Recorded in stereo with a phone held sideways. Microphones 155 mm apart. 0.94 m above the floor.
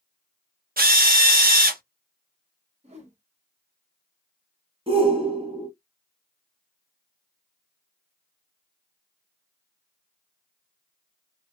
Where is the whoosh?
45° right (ahead or behind), 1.1 m.